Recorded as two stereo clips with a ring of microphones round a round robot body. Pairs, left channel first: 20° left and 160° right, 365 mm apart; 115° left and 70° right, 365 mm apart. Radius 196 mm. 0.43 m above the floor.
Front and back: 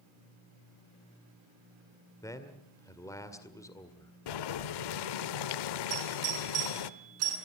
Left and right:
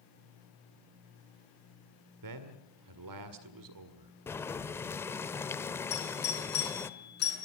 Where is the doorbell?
175° left, 7 m.